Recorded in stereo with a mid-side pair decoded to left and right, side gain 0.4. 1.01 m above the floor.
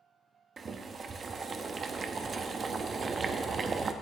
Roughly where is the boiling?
Ahead right.